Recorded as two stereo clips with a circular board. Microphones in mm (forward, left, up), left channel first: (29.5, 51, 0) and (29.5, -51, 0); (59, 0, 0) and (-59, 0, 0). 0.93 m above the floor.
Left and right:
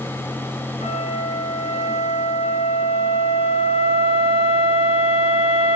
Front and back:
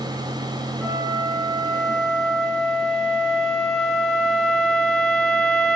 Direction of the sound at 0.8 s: 90° left.